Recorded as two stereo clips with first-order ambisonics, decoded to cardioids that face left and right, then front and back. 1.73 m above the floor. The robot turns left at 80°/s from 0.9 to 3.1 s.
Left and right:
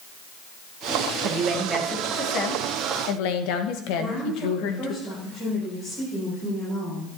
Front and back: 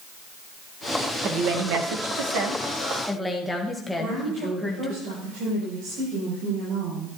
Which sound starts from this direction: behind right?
A woman speaking, at 1.2 s.